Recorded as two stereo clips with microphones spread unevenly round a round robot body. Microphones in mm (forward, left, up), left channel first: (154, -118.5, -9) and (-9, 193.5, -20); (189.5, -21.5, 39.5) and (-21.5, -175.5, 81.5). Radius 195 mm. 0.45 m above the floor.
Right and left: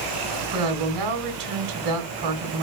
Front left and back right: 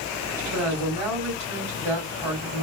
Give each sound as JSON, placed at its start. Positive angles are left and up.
{"t": 0.5, "sound": "a woman speaking", "azimuth_deg": 145, "distance_m": 1.8}